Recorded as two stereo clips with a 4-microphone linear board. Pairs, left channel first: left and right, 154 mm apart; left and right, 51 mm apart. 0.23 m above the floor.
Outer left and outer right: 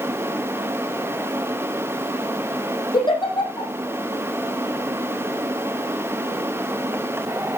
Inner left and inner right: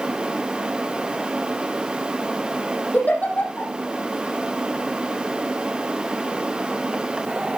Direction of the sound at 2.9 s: 35° left (ahead or behind).